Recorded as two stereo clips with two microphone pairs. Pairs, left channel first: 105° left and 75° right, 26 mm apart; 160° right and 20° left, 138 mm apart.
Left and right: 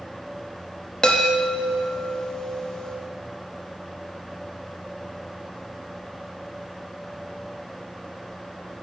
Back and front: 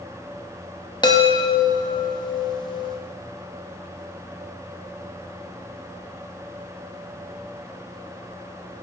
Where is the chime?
160° left, 0.8 m.